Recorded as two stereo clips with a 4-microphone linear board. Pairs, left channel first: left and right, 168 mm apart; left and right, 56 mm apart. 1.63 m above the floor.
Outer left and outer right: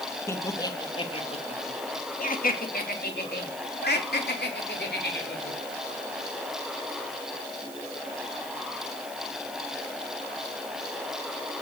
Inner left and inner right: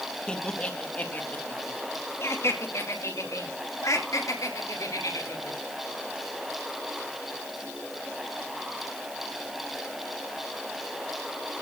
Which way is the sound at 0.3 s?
15° left (ahead or behind).